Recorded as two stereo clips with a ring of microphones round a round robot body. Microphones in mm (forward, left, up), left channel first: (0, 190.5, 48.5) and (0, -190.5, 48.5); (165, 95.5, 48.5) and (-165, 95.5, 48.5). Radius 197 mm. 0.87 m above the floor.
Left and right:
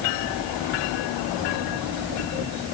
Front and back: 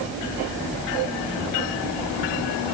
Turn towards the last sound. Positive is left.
No sound to turn to.